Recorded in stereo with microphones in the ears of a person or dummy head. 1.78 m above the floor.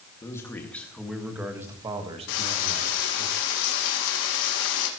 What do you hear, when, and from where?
0.2 s a man speaking: 10° left (ahead or behind), 2 m; by 3.3 s 65° right (ahead or behind), 2.0 m
2.3 s frying: 70° left (ahead or behind), 2.5 m